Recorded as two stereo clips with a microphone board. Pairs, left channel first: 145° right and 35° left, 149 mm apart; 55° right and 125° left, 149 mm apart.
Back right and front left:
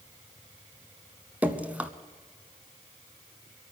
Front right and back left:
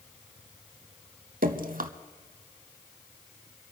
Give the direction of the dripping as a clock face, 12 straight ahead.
8 o'clock.